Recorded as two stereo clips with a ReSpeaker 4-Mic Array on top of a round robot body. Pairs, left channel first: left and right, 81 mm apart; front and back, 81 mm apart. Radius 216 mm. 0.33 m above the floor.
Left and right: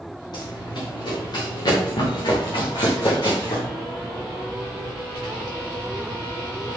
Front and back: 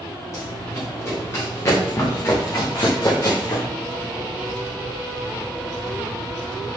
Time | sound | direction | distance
0.3 | running footsteps | 55° left | 5 m